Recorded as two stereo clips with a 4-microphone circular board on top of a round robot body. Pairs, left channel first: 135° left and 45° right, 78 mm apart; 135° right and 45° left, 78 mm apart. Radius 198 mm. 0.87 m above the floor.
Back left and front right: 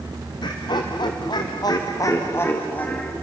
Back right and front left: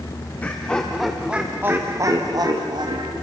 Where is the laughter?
155° left, 1.8 m; by 3.1 s 60° left, 2 m.